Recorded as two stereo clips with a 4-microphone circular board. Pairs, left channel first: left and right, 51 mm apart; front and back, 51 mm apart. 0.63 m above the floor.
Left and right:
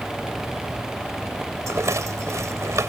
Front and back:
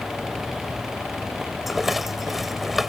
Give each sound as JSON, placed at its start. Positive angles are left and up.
{"t": 1.7, "sound": "a rattle", "azimuth_deg": -95}